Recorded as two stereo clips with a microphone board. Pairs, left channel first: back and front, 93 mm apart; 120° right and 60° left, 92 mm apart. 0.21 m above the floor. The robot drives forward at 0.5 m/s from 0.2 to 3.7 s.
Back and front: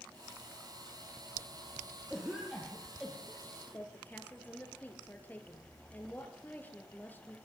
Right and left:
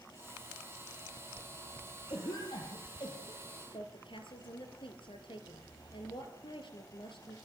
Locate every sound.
2.1 s a cough: 80° right, 6 m; by 3.8 s 90° right, 6 m
3.7 s a woman speaking: 110° right, 5 m